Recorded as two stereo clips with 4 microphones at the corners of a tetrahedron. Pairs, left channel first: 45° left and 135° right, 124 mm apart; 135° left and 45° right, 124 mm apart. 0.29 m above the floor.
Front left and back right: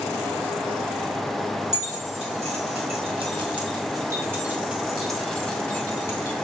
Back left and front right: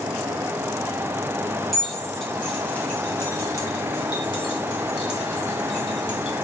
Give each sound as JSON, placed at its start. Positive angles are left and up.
{"t": 1.7, "sound": "keys jangling", "azimuth_deg": -135, "distance_m": 2.0}